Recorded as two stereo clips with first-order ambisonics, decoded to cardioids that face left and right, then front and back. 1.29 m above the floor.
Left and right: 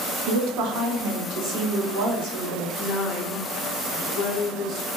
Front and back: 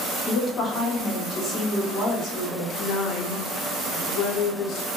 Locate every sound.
0.3 s a woman speaking: 70° right, 0.8 m; by 2.7 s 85° right, 2.5 m
2.8 s a woman speaking: 40° left, 0.7 m